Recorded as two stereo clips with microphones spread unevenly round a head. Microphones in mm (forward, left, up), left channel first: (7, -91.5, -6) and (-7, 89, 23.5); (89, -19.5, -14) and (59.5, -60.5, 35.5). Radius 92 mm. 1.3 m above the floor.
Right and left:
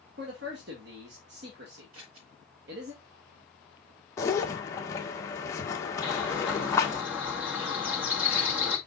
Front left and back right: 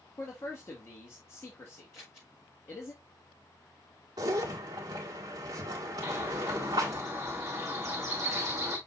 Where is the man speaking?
65° left, 2 m.